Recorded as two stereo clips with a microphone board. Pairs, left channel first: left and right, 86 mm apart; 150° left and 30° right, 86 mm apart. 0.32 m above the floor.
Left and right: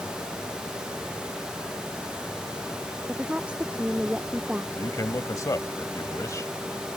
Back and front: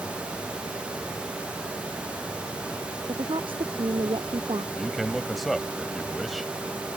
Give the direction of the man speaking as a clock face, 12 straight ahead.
10 o'clock.